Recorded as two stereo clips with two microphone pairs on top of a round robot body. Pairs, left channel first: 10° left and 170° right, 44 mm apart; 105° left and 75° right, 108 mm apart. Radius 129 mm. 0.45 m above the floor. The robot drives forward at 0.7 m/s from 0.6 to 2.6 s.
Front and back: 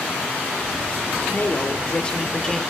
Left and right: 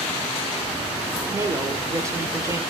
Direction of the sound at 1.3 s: 20° right.